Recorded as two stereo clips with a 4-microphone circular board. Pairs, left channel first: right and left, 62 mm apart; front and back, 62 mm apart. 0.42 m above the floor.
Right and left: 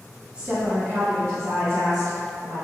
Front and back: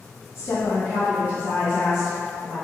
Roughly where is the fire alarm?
I don't hear a fire alarm.